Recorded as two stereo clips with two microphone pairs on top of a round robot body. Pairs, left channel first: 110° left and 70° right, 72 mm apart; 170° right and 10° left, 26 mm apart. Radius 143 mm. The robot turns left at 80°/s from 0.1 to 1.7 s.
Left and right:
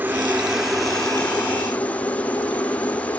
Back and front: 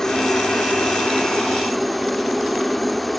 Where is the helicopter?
120° right; by 3.2 s 110° left.